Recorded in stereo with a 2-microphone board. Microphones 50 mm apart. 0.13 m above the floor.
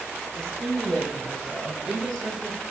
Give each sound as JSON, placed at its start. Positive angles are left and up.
{"t": 0.3, "sound": "a woman speaking", "side_deg": 10, "distance_m": 4.0}